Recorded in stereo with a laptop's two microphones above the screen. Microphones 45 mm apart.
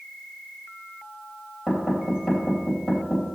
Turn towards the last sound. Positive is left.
turn(degrees=-10)  # may be behind; listen again after turning